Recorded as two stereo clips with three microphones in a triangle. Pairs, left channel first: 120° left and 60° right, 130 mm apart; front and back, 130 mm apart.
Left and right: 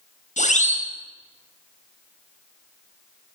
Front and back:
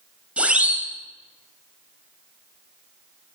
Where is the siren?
100° left, 7.5 m.